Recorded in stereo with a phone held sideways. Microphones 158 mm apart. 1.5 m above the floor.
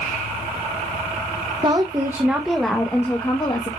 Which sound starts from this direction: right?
A woman speaking, at 1.6 s.